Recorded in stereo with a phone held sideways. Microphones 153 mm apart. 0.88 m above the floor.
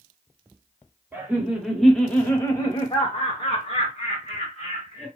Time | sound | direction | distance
1.1 | laughter | 10° right (ahead or behind) | 1.0 m